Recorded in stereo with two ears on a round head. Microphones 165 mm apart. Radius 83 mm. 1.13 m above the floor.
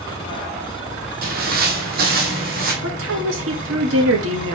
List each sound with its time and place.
1.2 s footsteps: 50° right (ahead or behind), 1.9 m; by 2.7 s 55° right (ahead or behind), 2.5 m
2.8 s a woman speaking: 80° right, 2 m